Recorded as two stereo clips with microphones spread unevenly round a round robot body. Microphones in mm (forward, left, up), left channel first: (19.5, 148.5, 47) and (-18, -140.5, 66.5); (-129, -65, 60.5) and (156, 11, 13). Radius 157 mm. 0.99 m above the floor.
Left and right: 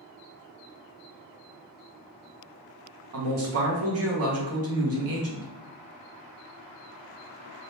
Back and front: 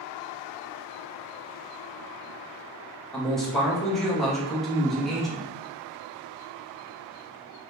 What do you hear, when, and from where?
3.1 s a man speaking: 70° right, 1.2 m